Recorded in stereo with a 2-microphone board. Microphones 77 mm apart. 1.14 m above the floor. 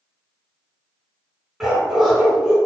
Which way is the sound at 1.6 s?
5° right (ahead or behind).